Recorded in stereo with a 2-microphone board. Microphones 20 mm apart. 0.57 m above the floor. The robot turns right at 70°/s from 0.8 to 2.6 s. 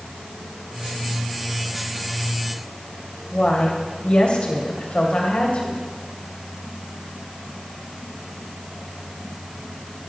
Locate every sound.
3.3 s a woman speaking: 70° left (ahead or behind), 3 m